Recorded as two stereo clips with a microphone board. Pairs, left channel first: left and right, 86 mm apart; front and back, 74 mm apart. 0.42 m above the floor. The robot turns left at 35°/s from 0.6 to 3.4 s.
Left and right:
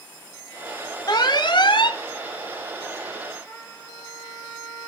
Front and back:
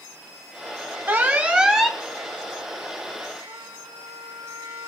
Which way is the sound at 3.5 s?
165° left.